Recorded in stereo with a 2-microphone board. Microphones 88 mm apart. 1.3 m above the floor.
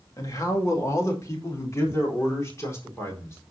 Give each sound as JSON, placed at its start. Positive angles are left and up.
{"t": 0.2, "sound": "a man speaking", "side_deg": 40, "distance_m": 2.0}